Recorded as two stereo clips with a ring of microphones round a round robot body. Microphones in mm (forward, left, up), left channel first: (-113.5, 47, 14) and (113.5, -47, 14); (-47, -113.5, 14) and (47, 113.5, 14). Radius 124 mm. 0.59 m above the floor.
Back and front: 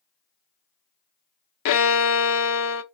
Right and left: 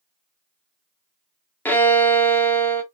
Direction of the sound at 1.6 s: 165° left.